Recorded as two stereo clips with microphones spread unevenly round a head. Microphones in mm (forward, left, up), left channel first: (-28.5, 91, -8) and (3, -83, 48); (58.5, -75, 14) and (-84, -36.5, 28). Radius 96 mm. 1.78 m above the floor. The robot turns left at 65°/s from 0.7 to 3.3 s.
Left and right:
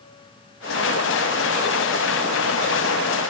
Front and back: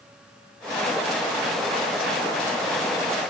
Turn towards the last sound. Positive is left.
No sound to turn to.